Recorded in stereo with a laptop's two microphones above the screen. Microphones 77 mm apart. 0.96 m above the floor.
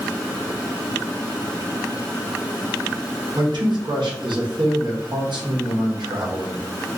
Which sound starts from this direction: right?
A man speaking, at 3.4 s.